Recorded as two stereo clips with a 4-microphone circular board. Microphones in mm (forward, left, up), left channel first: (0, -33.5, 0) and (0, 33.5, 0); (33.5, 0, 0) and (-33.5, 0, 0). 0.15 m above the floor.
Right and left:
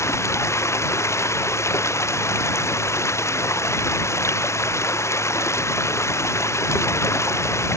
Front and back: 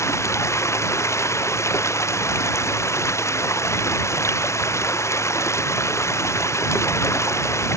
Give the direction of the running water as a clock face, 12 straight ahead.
1 o'clock.